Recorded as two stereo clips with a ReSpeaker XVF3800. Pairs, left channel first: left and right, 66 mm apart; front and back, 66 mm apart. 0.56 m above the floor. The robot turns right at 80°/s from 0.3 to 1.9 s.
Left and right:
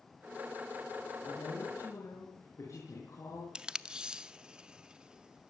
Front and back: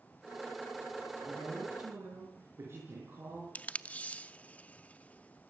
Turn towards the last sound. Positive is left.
turn(degrees=-35)